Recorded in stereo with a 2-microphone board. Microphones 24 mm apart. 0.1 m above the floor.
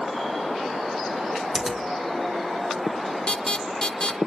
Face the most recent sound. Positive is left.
turn(degrees=40)  # may be behind; listen again after turning